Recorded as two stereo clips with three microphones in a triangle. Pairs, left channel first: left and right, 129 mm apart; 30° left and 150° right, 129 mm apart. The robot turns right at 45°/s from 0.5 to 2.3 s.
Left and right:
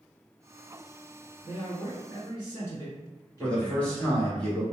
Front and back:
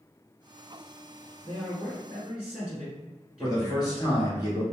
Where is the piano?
I don't hear a piano.